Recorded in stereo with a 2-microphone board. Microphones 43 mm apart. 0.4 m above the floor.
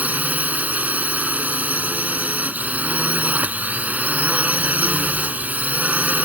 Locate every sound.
0.0 s a drone: 40° right (ahead or behind)